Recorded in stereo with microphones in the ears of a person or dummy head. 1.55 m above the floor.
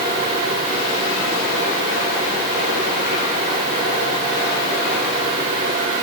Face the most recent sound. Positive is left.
No sound to turn to.